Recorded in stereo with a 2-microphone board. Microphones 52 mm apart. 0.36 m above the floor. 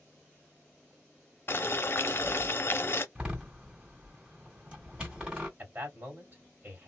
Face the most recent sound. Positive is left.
turn(degrees=-35)  # may be behind; listen again after turning